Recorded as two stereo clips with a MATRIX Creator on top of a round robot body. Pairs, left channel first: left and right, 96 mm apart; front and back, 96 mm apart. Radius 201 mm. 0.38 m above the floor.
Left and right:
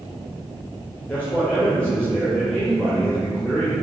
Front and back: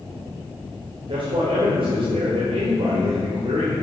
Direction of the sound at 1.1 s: 165° left.